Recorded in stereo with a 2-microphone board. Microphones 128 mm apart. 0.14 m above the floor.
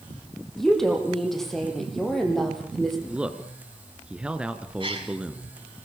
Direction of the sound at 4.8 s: 40° right (ahead or behind).